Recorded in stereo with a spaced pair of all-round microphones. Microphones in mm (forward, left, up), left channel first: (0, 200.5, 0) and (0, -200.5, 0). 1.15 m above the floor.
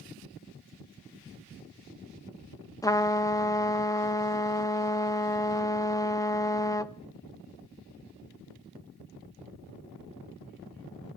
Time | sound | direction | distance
2.8 | a trumpet | 10° left (ahead or behind) | 0.6 m